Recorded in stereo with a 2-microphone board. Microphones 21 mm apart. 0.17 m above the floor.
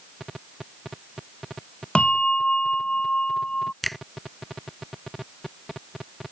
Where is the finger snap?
10° left (ahead or behind).